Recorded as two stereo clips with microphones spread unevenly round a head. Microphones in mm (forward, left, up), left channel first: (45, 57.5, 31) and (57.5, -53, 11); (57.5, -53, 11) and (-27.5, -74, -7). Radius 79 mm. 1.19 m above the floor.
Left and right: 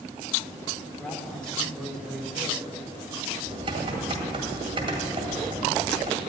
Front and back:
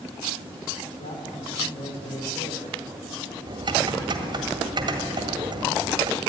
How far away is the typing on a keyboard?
About 1.8 m.